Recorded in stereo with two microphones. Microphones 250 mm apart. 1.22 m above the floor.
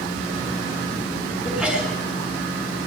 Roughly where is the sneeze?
Centre.